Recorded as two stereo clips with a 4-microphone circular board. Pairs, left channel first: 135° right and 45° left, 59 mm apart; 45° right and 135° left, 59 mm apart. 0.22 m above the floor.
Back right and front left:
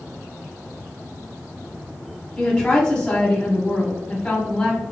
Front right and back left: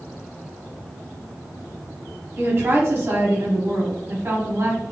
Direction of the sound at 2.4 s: 160° left.